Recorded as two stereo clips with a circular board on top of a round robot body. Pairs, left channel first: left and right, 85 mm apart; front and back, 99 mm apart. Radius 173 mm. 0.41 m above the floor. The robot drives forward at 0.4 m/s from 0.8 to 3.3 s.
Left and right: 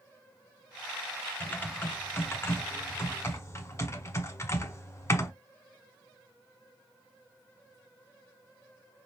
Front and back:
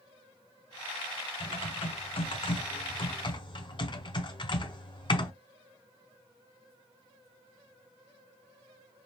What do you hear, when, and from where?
1.4 s typing on a keyboard: 20° left, 1.8 m; by 5.3 s 30° left, 1.2 m